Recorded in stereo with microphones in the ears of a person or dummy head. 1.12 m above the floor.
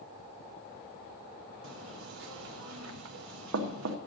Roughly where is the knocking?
Right.